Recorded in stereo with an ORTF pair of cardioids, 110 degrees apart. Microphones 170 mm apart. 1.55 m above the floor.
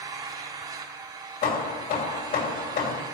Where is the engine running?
25° right, 3 m.